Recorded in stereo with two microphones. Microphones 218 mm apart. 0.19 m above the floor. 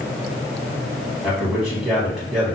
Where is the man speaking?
5° right (ahead or behind), 1.5 m.